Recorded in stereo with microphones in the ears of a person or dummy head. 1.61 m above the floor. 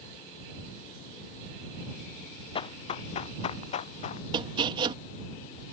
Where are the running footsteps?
35° left (ahead or behind); by 4.2 s 45° left (ahead or behind).